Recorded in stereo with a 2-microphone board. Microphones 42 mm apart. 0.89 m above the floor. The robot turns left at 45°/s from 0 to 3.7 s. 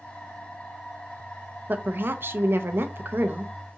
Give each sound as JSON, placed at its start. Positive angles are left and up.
{"t": 1.7, "sound": "a woman speaking", "azimuth_deg": -50, "distance_m": 0.5}